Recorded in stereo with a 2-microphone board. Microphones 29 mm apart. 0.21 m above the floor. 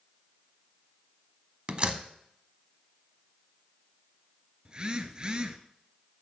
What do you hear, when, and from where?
1.7 s a door slam: 35° right (ahead or behind), 0.9 m
4.7 s a phone buzzing: 30° right (ahead or behind), 0.8 m